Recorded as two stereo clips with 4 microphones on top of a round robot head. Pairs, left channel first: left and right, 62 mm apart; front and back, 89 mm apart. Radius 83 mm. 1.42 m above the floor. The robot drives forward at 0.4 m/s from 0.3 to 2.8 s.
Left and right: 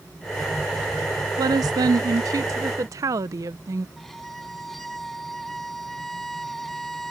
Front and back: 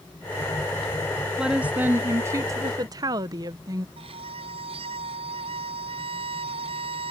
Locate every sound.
1.4 s a woman speaking: 95° right; by 3.9 s 130° right
4.0 s a violin: 175° left